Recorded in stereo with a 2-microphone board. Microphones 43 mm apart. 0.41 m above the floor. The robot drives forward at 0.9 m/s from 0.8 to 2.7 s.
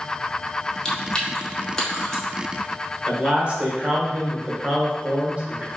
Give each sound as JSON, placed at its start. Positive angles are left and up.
{"t": 0.8, "sound": "chewing", "side_deg": 15, "distance_m": 0.9}
{"t": 3.1, "sound": "a man speaking", "side_deg": -30, "distance_m": 1.2}